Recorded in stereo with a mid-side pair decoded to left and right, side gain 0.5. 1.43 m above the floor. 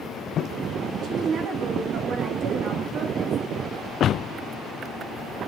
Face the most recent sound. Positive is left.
turn(degrees=-60)